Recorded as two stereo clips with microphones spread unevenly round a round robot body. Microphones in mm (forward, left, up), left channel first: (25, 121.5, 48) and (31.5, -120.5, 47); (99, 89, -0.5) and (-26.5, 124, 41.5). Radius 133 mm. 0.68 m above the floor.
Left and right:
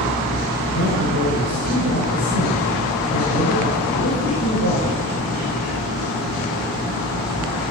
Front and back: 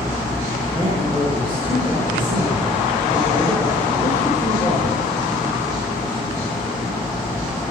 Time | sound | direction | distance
0.7 | a man speaking | 105° left | 9.5 m